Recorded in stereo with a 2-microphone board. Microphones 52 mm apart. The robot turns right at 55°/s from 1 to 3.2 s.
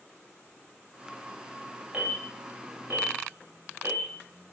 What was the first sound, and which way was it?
An alarm, 25° right (ahead or behind).